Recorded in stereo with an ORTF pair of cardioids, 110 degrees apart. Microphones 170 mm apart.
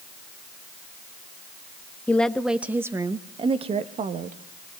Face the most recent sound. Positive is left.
turn(degrees=-50)